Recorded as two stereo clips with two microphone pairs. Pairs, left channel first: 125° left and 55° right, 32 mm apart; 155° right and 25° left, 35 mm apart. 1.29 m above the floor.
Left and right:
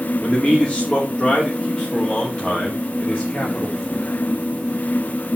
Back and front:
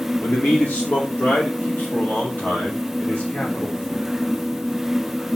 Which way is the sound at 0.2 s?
Straight behind.